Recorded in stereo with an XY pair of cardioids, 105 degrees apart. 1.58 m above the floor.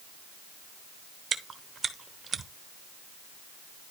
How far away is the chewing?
About 1.1 m.